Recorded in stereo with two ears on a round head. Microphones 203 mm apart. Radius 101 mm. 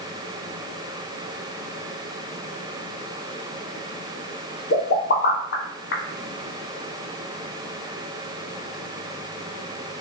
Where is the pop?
50° left (ahead or behind), 0.7 m.